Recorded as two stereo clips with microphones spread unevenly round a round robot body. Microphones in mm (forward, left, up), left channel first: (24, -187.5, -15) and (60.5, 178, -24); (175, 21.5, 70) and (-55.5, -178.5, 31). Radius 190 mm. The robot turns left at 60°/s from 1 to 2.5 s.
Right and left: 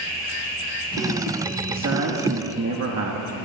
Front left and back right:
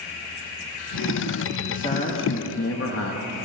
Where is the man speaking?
125° left, 1.0 m; by 3.4 s 75° left, 1.0 m.